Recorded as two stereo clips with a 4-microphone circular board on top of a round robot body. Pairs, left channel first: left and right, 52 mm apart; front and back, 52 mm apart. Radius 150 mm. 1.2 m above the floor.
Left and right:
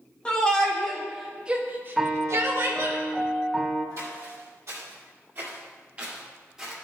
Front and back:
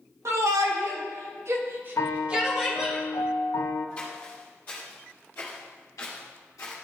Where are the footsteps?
70° right, 2.5 m; by 6.7 s 5° right, 1.7 m.